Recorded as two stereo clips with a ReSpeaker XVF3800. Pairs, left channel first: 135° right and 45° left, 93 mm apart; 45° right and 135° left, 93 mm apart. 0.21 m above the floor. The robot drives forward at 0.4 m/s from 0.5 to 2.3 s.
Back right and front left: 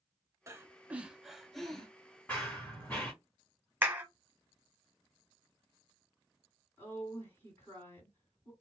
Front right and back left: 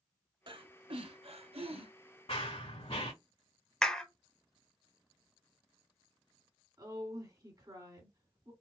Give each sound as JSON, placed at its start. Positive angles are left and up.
{"t": 0.5, "sound": "breathing", "azimuth_deg": 105, "distance_m": 0.5}
{"t": 2.3, "sound": "running footsteps", "azimuth_deg": -60, "distance_m": 1.2}
{"t": 3.8, "sound": "a clap", "azimuth_deg": 30, "distance_m": 0.9}
{"t": 6.8, "sound": "a woman speaking", "azimuth_deg": 165, "distance_m": 2.0}